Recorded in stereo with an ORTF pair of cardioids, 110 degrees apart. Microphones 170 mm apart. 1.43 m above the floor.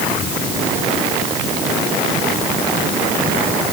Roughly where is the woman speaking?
No woman speaking in this recording.